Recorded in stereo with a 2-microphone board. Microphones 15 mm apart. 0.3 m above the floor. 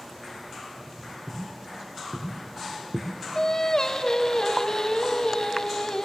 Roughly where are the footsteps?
Right.